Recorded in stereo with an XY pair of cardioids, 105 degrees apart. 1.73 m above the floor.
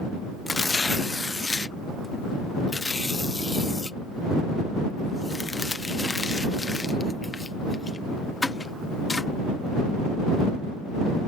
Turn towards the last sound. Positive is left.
turn(degrees=20)